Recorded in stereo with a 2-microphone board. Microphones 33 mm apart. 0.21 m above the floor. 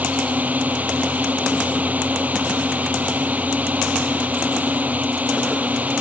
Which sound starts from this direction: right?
A drone, at 0.0 s.